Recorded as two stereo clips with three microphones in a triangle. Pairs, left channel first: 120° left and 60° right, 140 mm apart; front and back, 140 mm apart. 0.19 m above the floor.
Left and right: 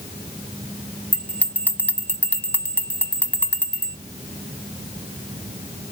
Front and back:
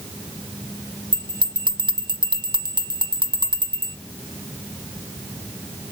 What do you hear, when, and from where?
1.1 s a bell: 170° right, 0.7 m